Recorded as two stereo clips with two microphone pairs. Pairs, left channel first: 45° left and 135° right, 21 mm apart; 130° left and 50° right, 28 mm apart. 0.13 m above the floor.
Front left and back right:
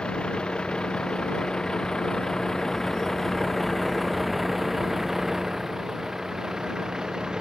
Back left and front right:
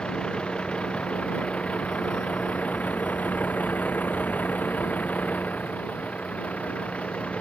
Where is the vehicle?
70° left; by 7.4 s 165° left.